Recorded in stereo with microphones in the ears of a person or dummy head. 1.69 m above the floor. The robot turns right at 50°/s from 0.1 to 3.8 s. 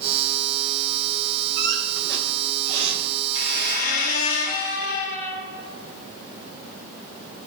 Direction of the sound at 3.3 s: 35° left (ahead or behind).